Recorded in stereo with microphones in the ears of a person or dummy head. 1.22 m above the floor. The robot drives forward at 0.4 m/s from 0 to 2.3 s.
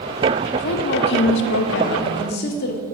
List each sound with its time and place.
0.5 s a woman speaking: 45° left (ahead or behind), 0.7 m; by 2.8 s 50° left (ahead or behind), 0.7 m